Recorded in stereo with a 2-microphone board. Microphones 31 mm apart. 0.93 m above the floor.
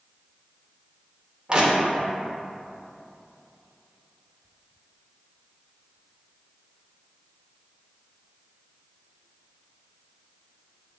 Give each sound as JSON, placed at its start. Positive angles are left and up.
{"t": 1.5, "sound": "crushing", "side_deg": -25, "distance_m": 0.6}